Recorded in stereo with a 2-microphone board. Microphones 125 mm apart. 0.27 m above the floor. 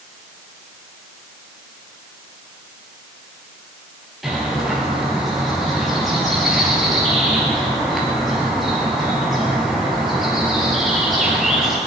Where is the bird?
Centre (ahead or behind), 4 m.